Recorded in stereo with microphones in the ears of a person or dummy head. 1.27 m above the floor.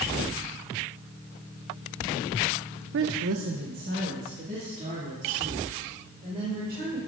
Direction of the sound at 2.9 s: 55° right (ahead or behind).